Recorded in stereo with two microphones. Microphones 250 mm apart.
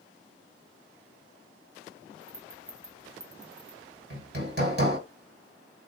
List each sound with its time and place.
2.2 s a rattle: 65° right (ahead or behind), 0.7 m
4.1 s hammering: 45° right (ahead or behind), 1.3 m